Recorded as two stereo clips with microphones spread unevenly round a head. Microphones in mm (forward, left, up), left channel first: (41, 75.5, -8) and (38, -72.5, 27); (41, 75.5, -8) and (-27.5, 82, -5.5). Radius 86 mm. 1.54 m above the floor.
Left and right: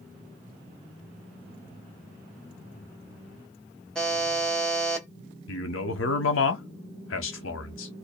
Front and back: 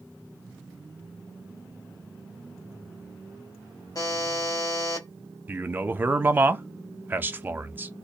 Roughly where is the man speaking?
Left.